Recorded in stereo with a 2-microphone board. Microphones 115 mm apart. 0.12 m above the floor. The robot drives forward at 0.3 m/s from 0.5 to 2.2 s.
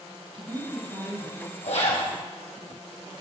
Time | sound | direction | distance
0.3 | a woman speaking | 45° right (ahead or behind) | 3.5 m
1.6 | a zipper | 70° left (ahead or behind) | 3.5 m